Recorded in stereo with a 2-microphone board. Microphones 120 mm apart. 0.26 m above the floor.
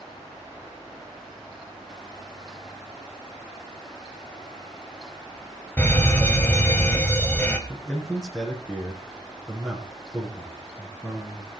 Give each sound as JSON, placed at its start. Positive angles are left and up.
{"t": 5.8, "sound": "a fire alarm", "side_deg": 15, "distance_m": 2.0}
{"t": 7.7, "sound": "a man speaking", "side_deg": 5, "distance_m": 3.0}